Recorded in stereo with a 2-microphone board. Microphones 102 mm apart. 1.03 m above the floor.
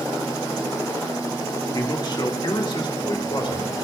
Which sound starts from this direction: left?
A man speaking, at 1.7 s.